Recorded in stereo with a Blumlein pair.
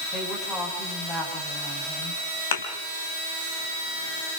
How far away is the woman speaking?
About 8.5 m.